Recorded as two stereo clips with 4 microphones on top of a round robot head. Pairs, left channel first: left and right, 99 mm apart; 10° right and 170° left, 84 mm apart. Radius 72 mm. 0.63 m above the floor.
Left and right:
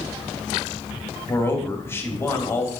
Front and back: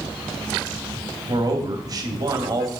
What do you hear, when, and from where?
1.3 s a man speaking: 150° left, 1.9 m